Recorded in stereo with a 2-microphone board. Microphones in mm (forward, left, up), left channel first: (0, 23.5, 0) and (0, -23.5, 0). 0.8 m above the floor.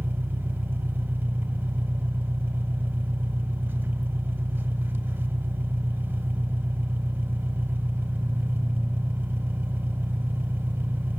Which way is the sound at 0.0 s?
40° right (ahead or behind).